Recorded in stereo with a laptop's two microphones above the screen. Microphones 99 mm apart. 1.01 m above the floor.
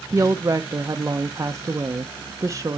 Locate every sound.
0.1 s a woman speaking: 30° right (ahead or behind), 0.6 m